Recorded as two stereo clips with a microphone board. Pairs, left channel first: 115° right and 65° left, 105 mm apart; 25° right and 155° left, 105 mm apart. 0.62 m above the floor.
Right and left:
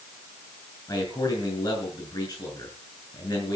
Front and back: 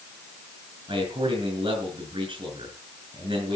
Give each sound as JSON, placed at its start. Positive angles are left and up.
{"t": 0.9, "sound": "a man speaking", "azimuth_deg": -165, "distance_m": 6.5}